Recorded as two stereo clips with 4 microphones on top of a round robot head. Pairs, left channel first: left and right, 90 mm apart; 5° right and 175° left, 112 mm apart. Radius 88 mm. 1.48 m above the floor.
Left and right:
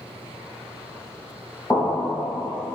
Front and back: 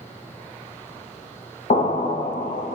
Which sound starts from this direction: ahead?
An explosion, at 1.7 s.